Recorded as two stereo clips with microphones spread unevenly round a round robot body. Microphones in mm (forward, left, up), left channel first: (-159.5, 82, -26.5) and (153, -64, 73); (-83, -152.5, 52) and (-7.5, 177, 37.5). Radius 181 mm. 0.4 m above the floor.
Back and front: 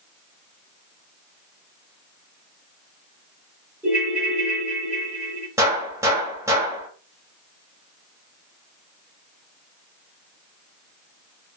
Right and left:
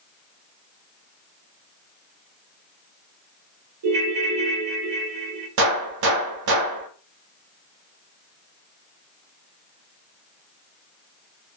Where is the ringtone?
70° left, 1.4 m.